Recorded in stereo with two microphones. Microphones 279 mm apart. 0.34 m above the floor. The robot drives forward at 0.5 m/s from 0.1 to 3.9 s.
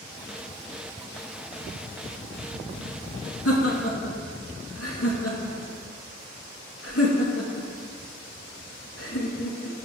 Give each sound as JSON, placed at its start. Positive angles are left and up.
{"t": 3.5, "sound": "laughter", "side_deg": 60, "distance_m": 4.0}